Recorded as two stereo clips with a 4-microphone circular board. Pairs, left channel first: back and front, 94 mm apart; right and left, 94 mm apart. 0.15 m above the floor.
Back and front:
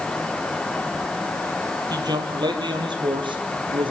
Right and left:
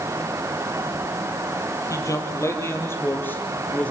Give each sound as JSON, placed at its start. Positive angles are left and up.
{"t": 1.9, "sound": "a man speaking", "azimuth_deg": -40, "distance_m": 3.5}